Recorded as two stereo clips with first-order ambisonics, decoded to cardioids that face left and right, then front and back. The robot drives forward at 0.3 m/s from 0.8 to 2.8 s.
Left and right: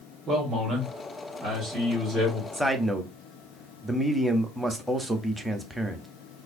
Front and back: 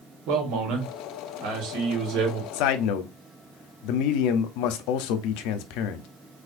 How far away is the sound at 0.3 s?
About 1.4 m.